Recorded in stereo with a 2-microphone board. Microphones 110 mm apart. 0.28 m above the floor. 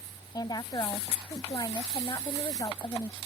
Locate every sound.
0.3 s a woman speaking: 40° left (ahead or behind)